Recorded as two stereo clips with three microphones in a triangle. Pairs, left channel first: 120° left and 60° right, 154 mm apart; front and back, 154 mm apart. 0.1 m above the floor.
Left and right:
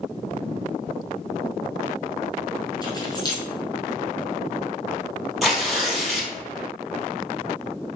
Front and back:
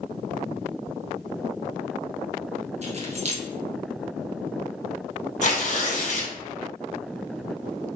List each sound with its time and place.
2.8 s keys jangling: 170° left, 1.3 m
5.4 s tearing paper: 30° left, 1.6 m